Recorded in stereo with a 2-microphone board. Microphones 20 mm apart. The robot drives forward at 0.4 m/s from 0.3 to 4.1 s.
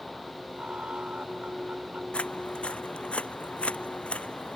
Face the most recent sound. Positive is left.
turn(degrees=75)  # may be behind; listen again after turning